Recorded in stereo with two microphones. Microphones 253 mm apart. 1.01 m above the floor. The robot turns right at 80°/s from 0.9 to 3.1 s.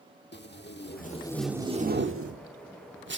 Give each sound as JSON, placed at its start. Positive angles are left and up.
{"t": 0.3, "sound": "tape being pulled", "side_deg": 45, "distance_m": 1.4}